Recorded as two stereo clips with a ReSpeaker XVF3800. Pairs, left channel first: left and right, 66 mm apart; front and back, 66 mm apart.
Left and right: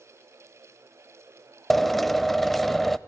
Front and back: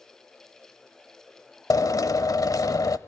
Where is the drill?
Straight ahead, 0.6 m.